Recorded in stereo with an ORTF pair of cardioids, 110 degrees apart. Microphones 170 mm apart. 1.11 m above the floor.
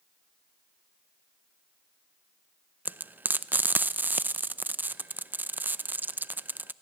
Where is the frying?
10° right, 0.5 m.